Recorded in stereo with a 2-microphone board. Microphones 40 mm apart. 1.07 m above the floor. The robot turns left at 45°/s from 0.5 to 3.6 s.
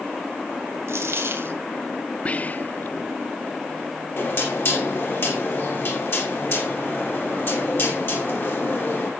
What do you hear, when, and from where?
0.9 s a dropped coin: 90° right, 2.5 m; by 1.6 s 125° right, 2.5 m
2.2 s whispering: 30° left (ahead or behind), 0.7 m; by 3.0 s 55° left (ahead or behind), 0.7 m
4.2 s knocking: 55° left (ahead or behind), 6 m